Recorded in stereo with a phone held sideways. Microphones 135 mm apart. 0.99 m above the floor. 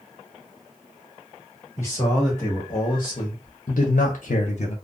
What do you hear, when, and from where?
1.8 s a man speaking: 20° left (ahead or behind), 1.5 m; by 4.8 s 45° left (ahead or behind), 0.6 m